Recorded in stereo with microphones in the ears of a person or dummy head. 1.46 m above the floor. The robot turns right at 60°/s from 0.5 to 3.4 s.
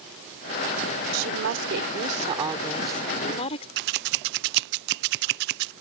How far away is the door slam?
No door slam in this recording.